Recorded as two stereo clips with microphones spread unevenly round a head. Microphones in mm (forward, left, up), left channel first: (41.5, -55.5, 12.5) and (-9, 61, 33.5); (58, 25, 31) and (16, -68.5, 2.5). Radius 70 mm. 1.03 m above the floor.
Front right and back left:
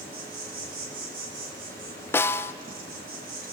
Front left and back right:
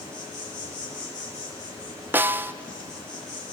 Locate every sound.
0.0 s an insect: 130° left, 3.5 m
2.1 s a snare drum: 105° right, 0.5 m